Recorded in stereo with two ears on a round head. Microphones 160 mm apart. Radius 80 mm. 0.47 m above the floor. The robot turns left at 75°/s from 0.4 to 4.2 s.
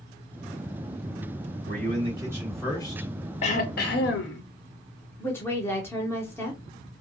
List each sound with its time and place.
1.7 s a man speaking: 115° right, 1.7 m; by 3.1 s 135° left, 1.7 m
3.4 s throat clearing: 140° left, 0.6 m; by 4.4 s 80° left, 0.6 m
5.2 s a woman speaking: 15° left (ahead or behind), 0.7 m